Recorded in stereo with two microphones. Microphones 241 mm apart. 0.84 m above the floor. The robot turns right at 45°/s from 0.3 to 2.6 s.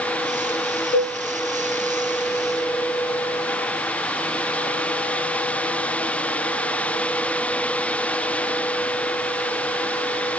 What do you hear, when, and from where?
0.9 s a cowbell: 50° left (ahead or behind), 0.9 m; by 1.2 s 45° left (ahead or behind), 0.9 m